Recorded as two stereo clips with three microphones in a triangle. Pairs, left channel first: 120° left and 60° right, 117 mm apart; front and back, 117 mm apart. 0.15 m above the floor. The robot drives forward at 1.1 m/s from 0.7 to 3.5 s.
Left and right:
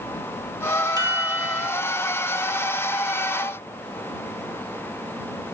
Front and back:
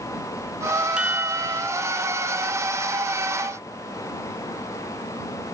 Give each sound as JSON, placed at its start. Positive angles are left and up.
{"t": 1.0, "sound": "a chime", "azimuth_deg": -100}